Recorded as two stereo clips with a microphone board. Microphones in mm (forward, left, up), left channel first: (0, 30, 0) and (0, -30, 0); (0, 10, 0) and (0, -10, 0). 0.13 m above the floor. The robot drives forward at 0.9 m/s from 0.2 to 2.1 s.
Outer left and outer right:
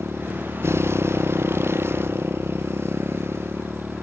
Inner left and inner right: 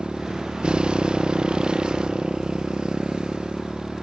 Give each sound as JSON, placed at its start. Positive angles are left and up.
{"t": 0.0, "sound": "a motorcycle", "side_deg": -45}